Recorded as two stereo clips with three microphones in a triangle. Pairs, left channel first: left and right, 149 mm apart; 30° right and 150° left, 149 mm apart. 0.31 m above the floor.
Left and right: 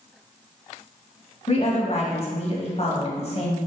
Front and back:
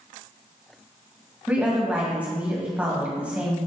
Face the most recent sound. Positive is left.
turn(degrees=75)